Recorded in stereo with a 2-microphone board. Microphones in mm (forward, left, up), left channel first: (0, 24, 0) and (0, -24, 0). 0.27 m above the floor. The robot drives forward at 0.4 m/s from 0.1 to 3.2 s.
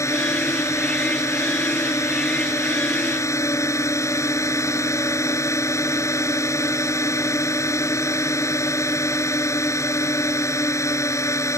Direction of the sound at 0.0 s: 70° left (ahead or behind).